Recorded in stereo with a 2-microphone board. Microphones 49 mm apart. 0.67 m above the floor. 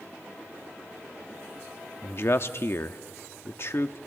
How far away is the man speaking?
About 0.8 m.